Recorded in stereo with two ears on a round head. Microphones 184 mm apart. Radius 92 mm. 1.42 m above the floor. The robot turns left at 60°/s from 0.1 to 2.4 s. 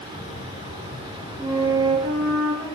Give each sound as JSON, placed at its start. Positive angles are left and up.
{"t": 1.4, "sound": "a flute", "azimuth_deg": 0, "distance_m": 4.5}